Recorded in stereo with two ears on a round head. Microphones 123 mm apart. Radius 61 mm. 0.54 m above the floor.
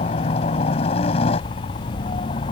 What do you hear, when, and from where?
0.0 s a helicopter: 45° left (ahead or behind); by 2.5 s 40° left (ahead or behind)